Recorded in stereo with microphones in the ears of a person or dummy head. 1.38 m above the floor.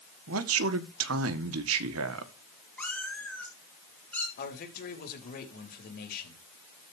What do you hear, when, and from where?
0.3 s a man speaking: 70° right (ahead or behind), 1.4 m
2.8 s a cat meowing: centre (ahead or behind), 2.5 m
4.4 s a man speaking: 60° left (ahead or behind), 3.5 m